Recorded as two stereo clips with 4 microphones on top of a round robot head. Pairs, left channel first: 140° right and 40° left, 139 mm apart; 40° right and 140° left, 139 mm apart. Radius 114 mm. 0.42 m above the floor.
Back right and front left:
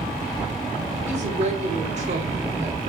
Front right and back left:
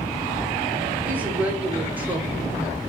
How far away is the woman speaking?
About 2.5 m.